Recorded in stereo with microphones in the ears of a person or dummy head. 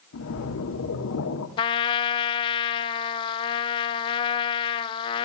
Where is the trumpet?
25° left (ahead or behind), 0.8 m.